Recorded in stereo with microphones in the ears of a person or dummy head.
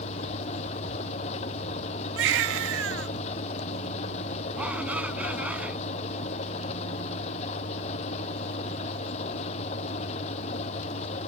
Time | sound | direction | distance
0.0 | an engine running | 40° left (ahead or behind) | ?
2.2 | a baby crying | 70° right (ahead or behind) | ?
4.5 | a shout | 10° right (ahead or behind) | ?